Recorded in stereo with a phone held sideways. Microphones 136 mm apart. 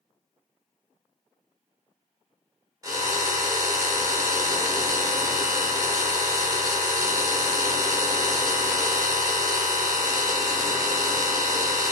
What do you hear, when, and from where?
2.8 s a drill: 25° right (ahead or behind), 2 m